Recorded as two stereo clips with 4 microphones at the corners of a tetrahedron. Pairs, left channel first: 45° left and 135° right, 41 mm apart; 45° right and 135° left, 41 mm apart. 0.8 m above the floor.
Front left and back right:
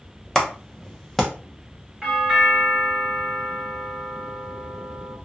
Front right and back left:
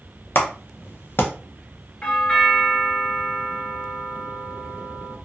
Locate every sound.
0.3 s a clap: 40° right, 0.7 m
2.0 s a doorbell: 70° right, 1.2 m